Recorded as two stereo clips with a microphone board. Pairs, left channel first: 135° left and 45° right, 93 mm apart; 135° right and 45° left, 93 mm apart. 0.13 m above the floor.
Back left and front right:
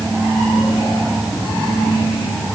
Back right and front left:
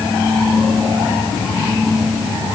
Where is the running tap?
I don't hear a running tap.